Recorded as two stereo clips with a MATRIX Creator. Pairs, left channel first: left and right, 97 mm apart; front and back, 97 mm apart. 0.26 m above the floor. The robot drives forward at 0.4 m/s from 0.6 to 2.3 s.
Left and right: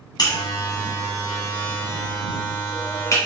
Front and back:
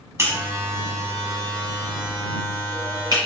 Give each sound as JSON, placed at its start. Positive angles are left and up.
{"t": 0.2, "sound": "a buzzer", "azimuth_deg": 125, "distance_m": 1.4}